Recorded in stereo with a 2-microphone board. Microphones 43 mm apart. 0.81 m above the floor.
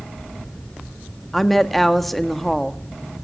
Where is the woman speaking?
5° left (ahead or behind), 1.5 m.